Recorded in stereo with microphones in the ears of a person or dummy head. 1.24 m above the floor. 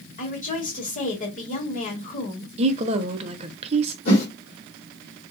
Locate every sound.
0.2 s a woman speaking: 40° left (ahead or behind), 1.7 m
2.6 s a woman speaking: 30° right (ahead or behind), 0.7 m
4.0 s a whoosh: 40° left (ahead or behind), 1.8 m